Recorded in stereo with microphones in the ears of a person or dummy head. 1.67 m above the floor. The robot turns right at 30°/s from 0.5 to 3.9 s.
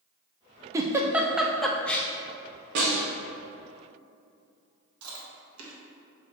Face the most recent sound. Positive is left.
turn(degrees=-85)